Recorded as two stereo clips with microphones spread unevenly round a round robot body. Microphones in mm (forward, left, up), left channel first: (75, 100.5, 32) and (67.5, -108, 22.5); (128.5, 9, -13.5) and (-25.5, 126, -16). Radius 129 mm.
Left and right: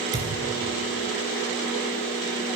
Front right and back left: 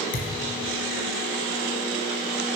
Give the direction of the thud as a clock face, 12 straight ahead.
1 o'clock.